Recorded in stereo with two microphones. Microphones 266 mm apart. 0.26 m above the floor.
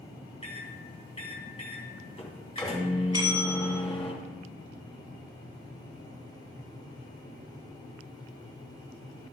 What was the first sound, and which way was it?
A microwave, 25° left (ahead or behind).